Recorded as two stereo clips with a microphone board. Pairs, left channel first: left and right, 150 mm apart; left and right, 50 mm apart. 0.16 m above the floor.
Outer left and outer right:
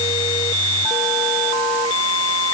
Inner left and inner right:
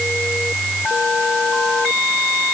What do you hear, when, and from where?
Only background noise.